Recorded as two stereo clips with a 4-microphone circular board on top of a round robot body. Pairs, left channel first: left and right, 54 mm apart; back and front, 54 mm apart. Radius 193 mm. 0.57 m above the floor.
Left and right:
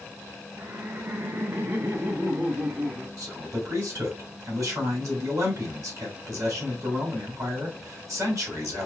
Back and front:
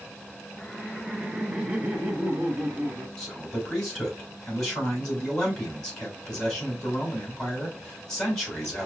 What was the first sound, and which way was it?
Laughter, 100° right.